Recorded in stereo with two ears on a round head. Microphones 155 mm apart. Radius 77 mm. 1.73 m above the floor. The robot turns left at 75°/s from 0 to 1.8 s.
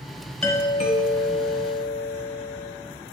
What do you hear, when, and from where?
0.4 s a doorbell: 170° left, 1.1 m; by 2.7 s 65° left, 1.1 m